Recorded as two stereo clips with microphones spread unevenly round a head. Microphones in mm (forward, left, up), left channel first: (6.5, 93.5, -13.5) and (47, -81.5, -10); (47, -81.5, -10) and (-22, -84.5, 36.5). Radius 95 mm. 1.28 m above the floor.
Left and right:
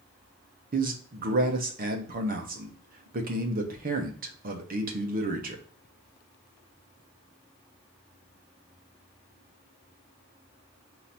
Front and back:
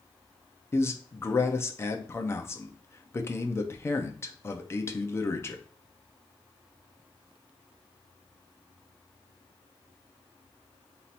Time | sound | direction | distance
0.7 | a man speaking | 35° right | 0.9 m